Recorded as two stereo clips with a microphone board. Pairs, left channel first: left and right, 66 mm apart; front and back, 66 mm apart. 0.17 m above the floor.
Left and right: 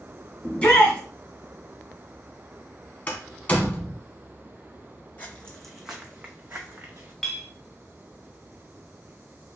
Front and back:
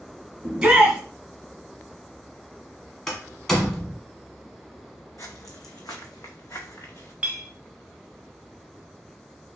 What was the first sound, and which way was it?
A shout, 125° left.